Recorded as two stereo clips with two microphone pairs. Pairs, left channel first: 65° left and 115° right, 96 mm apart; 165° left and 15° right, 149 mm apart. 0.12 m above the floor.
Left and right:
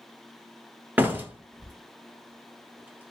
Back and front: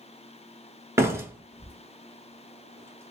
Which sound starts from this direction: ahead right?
A door slam, at 1.0 s.